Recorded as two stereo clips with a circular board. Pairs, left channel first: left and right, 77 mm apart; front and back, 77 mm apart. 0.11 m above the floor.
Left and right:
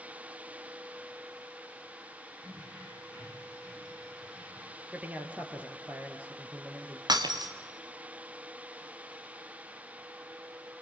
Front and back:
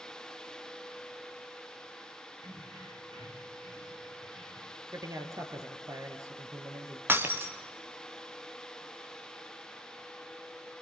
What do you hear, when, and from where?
2.4 s keys jangling: 165° right, 6 m; by 4.8 s 165° left, 6 m
4.9 s a man speaking: 155° right, 2.5 m
7.1 s breaking glass: 120° right, 2.5 m